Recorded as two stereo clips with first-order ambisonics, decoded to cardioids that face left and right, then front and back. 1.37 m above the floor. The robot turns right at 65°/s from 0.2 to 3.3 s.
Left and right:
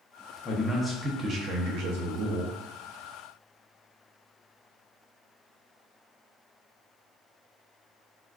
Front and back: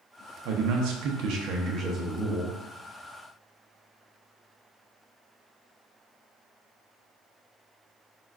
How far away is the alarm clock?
No alarm clock in this recording.